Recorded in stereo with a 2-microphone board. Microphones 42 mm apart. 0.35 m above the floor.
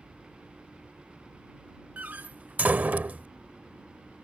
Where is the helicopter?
20° right (ahead or behind).